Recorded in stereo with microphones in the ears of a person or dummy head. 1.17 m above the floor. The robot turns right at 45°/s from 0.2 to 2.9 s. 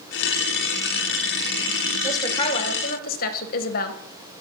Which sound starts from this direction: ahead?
A woman speaking, at 2.0 s.